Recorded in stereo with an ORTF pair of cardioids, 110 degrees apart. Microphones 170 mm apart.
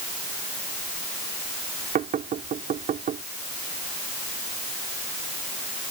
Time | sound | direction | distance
1.9 | knocking | 50° right | ?